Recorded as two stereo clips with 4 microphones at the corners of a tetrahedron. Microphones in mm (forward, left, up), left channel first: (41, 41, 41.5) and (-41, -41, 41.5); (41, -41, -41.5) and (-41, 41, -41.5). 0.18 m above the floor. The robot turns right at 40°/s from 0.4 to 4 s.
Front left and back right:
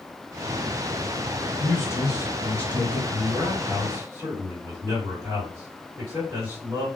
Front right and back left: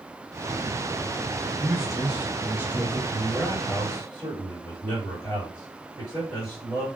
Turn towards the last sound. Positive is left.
turn(degrees=-100)